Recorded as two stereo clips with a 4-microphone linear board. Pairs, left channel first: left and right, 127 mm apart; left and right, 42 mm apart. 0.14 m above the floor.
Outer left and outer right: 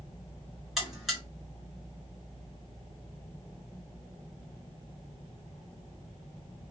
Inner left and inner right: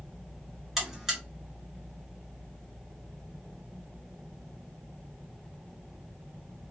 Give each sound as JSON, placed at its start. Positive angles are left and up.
{"t": 0.8, "sound": "a buzzer", "side_deg": 0, "distance_m": 1.9}